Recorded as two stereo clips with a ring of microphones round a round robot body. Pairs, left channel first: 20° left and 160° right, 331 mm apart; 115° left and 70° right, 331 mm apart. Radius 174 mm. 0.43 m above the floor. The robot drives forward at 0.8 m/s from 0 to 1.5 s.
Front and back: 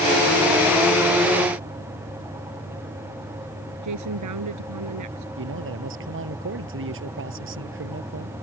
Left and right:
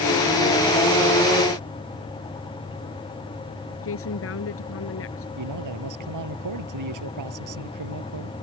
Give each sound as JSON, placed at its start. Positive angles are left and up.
{"t": 3.8, "sound": "a woman speaking", "azimuth_deg": 165}
{"t": 5.4, "sound": "a man speaking", "azimuth_deg": -105}